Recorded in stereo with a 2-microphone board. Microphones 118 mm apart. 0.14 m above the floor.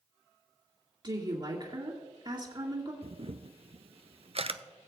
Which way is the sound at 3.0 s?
55° right (ahead or behind).